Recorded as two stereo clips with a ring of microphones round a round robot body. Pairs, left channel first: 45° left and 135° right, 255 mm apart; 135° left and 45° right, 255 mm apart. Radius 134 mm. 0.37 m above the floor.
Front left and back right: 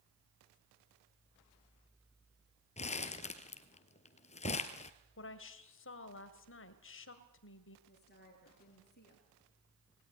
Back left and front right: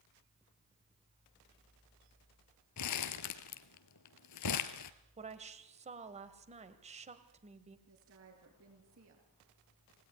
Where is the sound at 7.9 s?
10° right, 7.5 m.